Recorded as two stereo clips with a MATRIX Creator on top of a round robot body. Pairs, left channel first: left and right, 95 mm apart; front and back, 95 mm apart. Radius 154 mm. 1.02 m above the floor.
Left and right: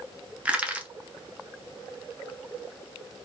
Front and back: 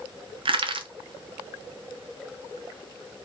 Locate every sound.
0.5 s crushing: 165° right, 0.6 m